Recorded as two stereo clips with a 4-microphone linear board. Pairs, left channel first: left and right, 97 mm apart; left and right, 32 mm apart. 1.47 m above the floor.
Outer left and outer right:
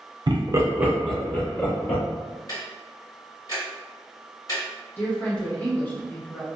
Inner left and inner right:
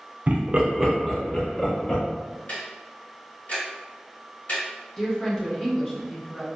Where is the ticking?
40° left (ahead or behind), 1.4 m.